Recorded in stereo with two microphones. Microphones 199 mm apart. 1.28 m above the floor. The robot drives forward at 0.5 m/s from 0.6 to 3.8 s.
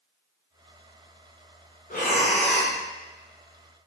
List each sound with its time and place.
1.9 s breathing: 45° left (ahead or behind), 0.6 m; by 2.8 s 25° left (ahead or behind), 0.9 m